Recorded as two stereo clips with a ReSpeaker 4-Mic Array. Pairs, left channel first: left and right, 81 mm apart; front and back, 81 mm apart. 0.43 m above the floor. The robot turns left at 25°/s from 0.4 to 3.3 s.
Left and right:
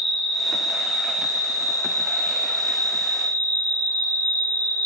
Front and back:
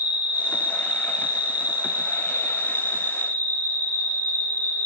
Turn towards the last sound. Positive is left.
turn(degrees=-70)